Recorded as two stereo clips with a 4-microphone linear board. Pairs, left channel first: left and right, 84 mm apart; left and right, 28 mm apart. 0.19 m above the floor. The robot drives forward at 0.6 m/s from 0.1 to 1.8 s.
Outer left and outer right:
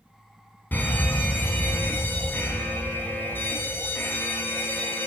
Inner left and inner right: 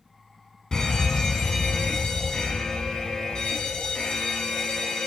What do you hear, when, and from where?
0.7 s a fire alarm: 20° left (ahead or behind), 2.5 m; by 5.1 s 25° left (ahead or behind), 2 m